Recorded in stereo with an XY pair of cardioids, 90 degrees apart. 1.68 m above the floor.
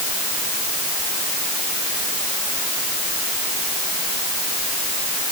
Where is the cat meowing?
No cat meowing in this recording.